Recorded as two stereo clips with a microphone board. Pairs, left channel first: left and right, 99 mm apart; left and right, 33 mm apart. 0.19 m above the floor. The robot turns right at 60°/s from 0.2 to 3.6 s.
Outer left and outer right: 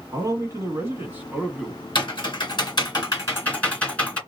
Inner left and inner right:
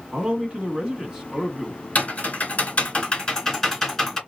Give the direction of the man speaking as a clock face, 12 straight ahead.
3 o'clock.